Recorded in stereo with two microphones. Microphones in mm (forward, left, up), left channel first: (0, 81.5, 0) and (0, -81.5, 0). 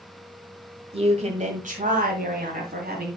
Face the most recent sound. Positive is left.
turn(degrees=-70)  # may be behind; listen again after turning